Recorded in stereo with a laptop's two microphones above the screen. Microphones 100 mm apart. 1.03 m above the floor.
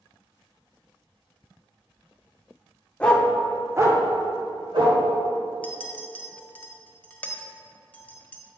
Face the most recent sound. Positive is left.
turn(degrees=15)  # may be behind; listen again after turning